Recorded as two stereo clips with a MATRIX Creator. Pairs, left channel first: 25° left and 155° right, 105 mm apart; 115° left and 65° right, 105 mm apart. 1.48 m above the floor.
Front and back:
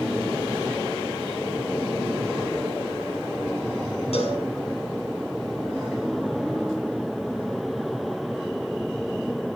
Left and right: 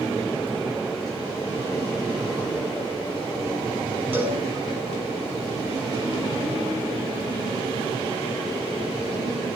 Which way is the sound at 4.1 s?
5° left.